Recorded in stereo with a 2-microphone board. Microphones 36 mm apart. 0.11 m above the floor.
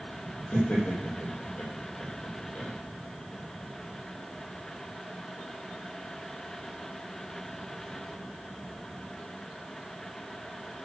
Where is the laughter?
45° left (ahead or behind), 5 m.